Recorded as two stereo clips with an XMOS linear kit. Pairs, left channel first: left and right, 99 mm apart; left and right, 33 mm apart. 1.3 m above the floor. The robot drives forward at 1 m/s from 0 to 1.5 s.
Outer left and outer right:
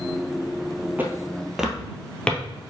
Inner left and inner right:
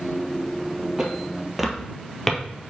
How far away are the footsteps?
About 1.4 m.